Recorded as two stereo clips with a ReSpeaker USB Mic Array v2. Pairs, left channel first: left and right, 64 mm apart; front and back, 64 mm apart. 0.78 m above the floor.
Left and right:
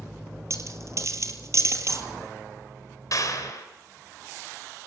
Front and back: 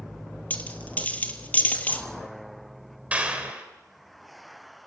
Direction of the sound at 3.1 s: 115° left.